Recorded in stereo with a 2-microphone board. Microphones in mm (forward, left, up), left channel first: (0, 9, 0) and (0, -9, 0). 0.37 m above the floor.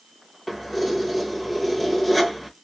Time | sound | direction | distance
0.5 | keys jangling | 10° left (ahead or behind) | 1.0 m